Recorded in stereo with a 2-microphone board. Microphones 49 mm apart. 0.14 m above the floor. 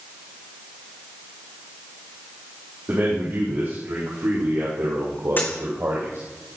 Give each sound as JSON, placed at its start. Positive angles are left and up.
{"t": 2.9, "sound": "a man speaking", "side_deg": -65, "distance_m": 7.0}
{"t": 5.4, "sound": "a dropped coin", "side_deg": 40, "distance_m": 3.0}